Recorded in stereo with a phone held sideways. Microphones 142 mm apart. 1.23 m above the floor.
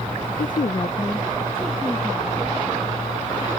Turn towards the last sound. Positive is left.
turn(degrees=-5)  # may be behind; listen again after turning